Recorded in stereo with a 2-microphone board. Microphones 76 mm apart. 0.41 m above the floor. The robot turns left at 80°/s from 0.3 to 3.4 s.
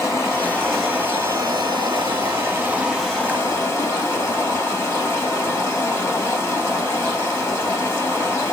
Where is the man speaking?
No man speaking in this recording.